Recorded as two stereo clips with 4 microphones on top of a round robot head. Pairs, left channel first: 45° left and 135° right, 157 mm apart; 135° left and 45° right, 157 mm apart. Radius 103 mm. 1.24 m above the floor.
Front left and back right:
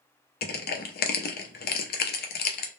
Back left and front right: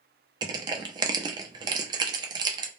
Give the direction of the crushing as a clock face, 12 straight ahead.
11 o'clock.